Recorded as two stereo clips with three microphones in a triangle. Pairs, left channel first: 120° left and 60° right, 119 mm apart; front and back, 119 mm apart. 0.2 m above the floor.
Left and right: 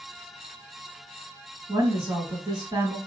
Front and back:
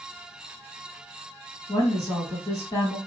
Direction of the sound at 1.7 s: 35° right.